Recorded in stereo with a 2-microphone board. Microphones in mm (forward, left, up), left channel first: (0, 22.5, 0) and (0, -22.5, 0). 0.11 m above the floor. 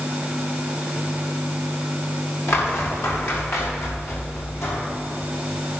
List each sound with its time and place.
2.5 s footsteps: 75° left (ahead or behind), 6.5 m; by 4.8 s 85° left, 7 m